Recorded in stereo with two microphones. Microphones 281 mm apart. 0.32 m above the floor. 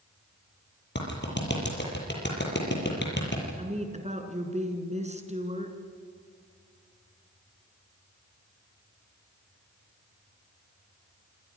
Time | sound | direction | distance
0.9 | a clap | 40° left (ahead or behind) | 7 m
3.6 | a woman speaking | 25° right (ahead or behind) | 3.5 m